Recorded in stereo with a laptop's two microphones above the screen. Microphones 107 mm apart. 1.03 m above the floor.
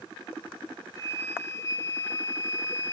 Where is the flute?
25° left (ahead or behind), 0.6 m.